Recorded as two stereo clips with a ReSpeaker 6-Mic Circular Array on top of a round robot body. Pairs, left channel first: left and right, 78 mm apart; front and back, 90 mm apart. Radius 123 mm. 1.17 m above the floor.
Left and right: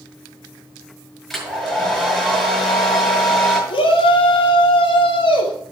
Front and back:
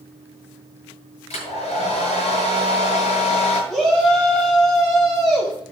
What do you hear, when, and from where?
1.3 s a hair dryer: 5° left, 6.5 m
3.7 s a shout: 90° left, 4 m